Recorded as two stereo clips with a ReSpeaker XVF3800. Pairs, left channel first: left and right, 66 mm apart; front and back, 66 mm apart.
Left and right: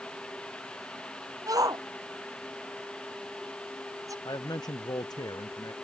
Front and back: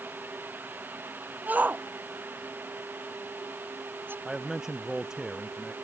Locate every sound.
1.5 s a shout: 115° right; by 4.2 s 125° right
4.2 s a man speaking: 95° left